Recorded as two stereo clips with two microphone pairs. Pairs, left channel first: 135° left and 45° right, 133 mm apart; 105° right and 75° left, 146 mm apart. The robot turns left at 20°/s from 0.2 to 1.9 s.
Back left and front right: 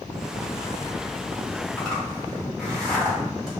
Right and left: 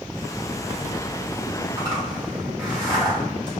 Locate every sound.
1.8 s a zipper: 55° left, 1.2 m; by 3.5 s 50° left, 1.2 m